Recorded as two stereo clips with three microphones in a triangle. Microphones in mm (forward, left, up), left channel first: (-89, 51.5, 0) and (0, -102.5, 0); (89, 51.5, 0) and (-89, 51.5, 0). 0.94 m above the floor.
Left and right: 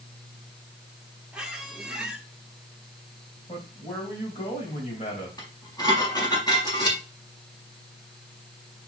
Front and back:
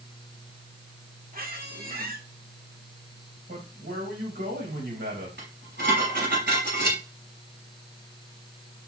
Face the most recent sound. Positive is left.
turn(degrees=-170)